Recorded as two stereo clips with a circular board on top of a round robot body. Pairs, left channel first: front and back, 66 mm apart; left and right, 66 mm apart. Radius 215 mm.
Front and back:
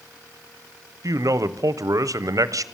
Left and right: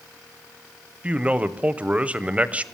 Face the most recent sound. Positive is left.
turn(degrees=-160)